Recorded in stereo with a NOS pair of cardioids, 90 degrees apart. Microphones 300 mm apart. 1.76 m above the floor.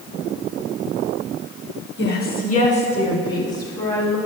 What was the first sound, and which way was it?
A woman speaking, 40° left.